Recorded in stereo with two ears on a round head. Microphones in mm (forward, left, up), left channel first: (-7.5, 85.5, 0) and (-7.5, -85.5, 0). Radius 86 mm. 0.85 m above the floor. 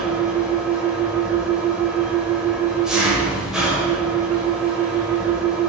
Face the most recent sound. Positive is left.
turn(degrees=-5)  # may be behind; listen again after turning